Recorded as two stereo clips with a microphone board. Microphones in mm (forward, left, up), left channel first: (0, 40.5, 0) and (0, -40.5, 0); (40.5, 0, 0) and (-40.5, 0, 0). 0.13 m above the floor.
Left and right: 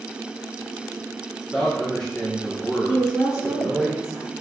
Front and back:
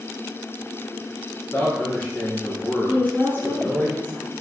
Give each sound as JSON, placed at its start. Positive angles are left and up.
{"t": 1.5, "sound": "a man speaking", "azimuth_deg": 15, "distance_m": 1.3}
{"t": 2.9, "sound": "a woman speaking", "azimuth_deg": -150, "distance_m": 1.6}